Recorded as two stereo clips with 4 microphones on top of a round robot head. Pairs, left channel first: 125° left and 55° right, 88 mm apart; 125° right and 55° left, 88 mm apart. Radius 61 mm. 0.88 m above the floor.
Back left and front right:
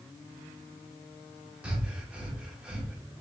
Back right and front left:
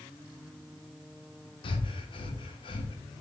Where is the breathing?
130° right, 0.9 m.